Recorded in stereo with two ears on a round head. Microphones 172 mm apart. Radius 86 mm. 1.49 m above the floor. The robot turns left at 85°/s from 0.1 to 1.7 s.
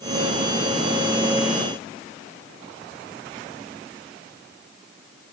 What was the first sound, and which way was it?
Only background noise.